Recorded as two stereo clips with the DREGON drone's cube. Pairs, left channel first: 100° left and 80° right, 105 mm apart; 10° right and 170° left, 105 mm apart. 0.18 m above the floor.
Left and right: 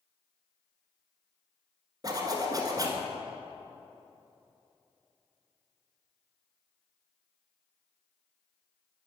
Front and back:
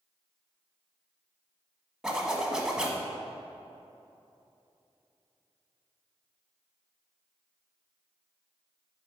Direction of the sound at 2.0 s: 110° right.